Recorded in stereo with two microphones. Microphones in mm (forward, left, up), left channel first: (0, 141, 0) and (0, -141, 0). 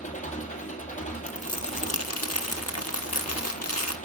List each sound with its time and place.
0.0 s an engine running: 25° left (ahead or behind), 2 m
1.3 s crumpling: 60° left (ahead or behind), 0.9 m